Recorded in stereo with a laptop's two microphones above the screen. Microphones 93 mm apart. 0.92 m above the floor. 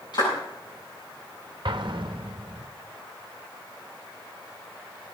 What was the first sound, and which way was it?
A clap, 55° left (ahead or behind).